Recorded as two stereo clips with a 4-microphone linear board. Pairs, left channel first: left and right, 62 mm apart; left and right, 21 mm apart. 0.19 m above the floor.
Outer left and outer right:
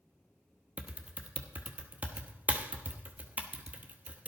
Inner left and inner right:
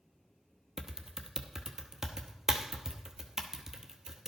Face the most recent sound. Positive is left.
turn(degrees=-25)  # may be behind; listen again after turning